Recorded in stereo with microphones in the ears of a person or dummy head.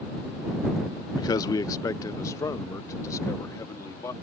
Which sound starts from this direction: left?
A man speaking, at 1.2 s.